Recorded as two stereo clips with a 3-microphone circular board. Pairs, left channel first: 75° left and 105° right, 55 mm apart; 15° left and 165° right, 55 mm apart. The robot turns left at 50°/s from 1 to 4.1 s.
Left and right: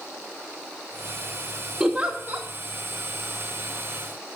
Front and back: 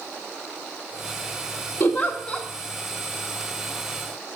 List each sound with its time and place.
1.8 s a giggle: 25° right, 1.6 m; by 2.5 s 60° right, 1.6 m